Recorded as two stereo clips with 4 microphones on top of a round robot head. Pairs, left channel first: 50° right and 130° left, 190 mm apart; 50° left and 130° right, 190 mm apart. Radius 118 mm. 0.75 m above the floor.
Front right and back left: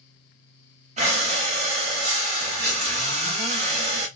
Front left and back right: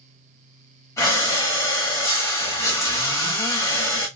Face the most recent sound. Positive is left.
turn(degrees=115)